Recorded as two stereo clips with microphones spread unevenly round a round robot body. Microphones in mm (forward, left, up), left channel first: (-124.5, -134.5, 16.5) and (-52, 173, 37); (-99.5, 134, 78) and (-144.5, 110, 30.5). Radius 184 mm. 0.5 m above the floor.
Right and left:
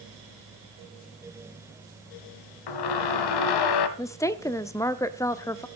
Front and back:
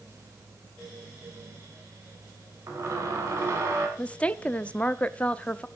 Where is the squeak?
100° right, 1.1 m.